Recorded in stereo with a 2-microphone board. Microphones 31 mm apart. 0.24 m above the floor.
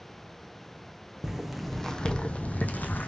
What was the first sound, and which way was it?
Footsteps, 10° right (ahead or behind).